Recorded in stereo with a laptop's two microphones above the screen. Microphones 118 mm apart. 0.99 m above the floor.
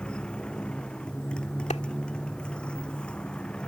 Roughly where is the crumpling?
No crumpling in this recording.